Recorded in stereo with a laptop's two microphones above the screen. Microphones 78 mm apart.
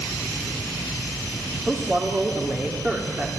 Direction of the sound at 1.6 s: 30° right (ahead or behind).